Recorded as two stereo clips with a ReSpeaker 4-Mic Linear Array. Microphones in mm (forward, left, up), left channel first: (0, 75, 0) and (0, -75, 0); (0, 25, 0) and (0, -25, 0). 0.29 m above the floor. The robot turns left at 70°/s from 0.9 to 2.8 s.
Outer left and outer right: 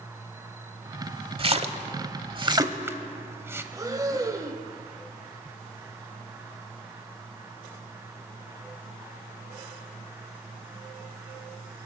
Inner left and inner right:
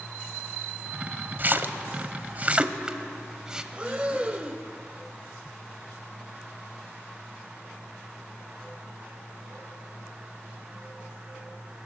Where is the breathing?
25° right (ahead or behind), 0.9 m.